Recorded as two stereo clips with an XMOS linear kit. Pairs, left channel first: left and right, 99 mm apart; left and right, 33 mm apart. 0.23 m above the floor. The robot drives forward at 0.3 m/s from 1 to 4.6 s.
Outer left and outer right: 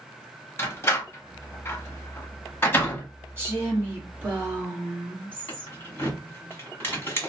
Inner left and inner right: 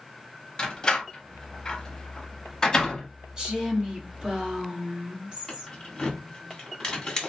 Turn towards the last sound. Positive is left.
turn(degrees=25)  # may be behind; listen again after turning